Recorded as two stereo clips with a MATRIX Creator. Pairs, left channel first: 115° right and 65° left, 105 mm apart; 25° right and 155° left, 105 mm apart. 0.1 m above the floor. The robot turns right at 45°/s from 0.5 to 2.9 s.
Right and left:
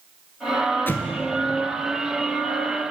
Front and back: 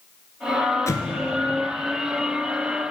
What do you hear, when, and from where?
0.9 s an explosion: 55° right, 0.6 m; by 1.2 s 45° right, 0.6 m